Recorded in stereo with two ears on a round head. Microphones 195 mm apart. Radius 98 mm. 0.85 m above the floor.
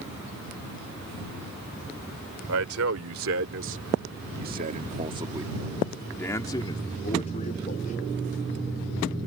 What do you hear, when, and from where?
2.5 s a man speaking: 75° right (ahead or behind); by 8.1 s 40° left (ahead or behind)